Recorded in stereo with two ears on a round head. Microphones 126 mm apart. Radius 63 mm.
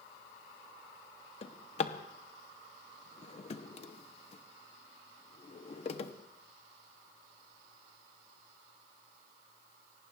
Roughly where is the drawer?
Left.